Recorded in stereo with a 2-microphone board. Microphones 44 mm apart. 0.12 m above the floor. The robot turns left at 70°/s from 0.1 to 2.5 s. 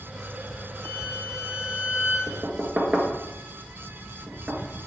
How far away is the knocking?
About 1.4 m.